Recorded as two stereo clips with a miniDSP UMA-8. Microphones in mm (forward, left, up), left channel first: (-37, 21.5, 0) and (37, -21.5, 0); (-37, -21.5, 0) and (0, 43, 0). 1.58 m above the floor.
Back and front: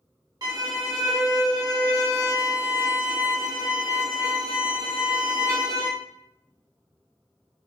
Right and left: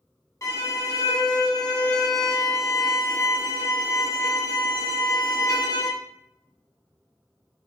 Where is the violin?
75° right, 0.7 m.